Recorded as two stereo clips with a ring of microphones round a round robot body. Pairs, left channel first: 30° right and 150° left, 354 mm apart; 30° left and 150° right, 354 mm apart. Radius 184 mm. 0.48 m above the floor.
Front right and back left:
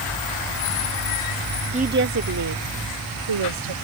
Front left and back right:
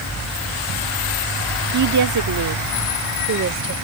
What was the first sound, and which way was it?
A woman speaking, 145° right.